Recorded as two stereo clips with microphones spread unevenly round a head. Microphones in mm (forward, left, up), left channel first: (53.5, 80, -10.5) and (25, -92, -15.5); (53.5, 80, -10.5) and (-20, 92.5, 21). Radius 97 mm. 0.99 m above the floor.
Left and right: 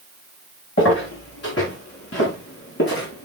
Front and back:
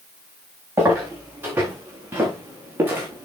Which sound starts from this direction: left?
Footsteps, at 0.8 s.